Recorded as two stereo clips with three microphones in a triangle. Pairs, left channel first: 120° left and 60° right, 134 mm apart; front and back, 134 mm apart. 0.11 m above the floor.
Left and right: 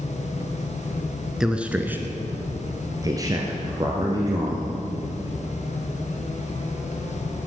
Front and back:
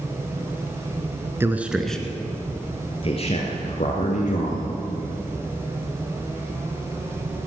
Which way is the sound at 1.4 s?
140° right.